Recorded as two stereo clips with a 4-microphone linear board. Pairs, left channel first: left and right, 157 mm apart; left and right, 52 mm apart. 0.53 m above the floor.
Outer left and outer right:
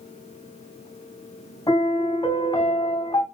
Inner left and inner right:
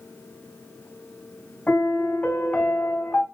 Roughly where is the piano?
Left.